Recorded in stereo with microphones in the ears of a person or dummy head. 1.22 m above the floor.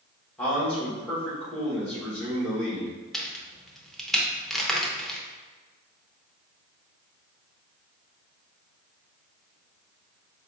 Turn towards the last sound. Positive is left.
turn(degrees=0)  # may be behind; listen again after turning